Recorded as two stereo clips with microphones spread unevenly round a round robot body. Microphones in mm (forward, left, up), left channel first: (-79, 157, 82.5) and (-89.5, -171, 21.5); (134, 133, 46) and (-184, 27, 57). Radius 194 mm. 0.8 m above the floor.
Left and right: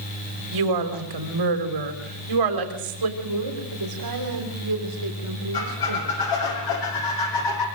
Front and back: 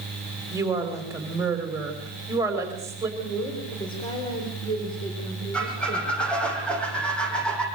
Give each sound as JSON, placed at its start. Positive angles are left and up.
{"t": 0.5, "sound": "a woman speaking", "azimuth_deg": -80, "distance_m": 4.0}
{"t": 3.2, "sound": "a woman speaking", "azimuth_deg": -60, "distance_m": 4.0}
{"t": 5.5, "sound": "a squeak", "azimuth_deg": 105, "distance_m": 8.5}